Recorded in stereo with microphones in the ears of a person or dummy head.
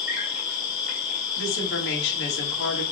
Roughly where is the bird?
No bird in this recording.